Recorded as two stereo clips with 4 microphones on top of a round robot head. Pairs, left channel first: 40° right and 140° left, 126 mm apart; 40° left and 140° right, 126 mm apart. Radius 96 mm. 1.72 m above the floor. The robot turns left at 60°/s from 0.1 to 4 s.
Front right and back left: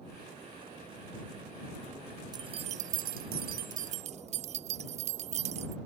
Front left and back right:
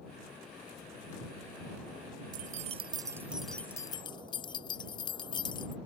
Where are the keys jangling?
160° right; by 5.8 s 100° left.